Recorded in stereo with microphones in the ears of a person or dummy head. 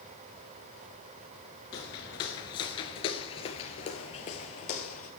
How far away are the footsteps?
About 1.5 m.